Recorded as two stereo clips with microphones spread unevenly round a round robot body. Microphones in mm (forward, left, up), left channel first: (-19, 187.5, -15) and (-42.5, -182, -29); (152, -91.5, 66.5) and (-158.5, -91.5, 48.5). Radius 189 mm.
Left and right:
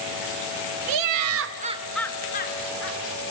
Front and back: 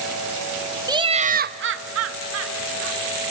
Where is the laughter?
105° right, 1.2 m; by 3.0 s 135° left, 1.5 m.